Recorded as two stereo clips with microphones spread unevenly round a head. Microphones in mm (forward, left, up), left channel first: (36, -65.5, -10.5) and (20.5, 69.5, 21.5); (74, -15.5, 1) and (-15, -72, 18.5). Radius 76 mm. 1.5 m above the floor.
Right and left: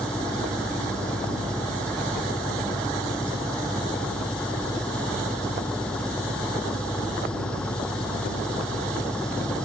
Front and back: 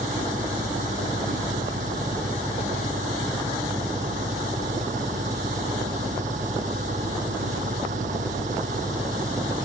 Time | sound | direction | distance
0.0 | an engine running | 170° right | ?